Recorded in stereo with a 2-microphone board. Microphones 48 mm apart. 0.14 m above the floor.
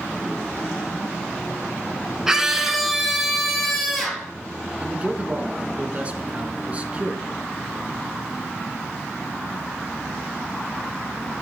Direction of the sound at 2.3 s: 10° right (ahead or behind).